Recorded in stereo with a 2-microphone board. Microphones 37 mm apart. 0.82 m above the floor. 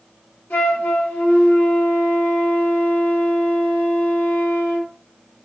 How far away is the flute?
About 1.5 m.